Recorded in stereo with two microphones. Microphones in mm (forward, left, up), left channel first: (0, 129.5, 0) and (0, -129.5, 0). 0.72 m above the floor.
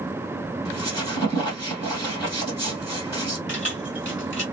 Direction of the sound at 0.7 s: 15° left (ahead or behind).